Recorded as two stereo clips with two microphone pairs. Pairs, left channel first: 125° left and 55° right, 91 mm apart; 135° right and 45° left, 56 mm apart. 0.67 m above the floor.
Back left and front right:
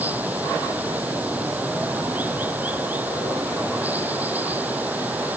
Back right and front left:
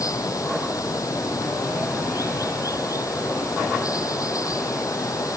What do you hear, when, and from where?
0.0 s running water: 125° right